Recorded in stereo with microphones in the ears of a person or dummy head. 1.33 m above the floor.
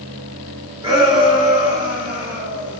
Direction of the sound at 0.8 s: 25° right (ahead or behind).